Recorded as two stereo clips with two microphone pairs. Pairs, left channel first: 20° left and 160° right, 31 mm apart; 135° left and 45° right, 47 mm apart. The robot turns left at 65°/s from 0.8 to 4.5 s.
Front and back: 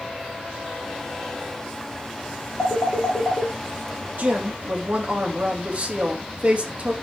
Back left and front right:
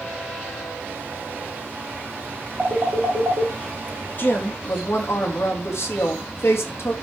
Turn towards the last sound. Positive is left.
turn(degrees=160)